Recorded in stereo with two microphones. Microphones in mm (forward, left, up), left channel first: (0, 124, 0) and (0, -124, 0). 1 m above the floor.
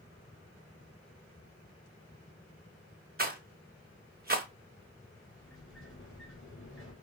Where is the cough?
I don't hear a cough.